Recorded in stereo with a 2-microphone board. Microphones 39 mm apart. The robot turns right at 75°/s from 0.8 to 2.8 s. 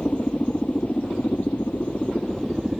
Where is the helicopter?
40° left; by 2.8 s 170° right.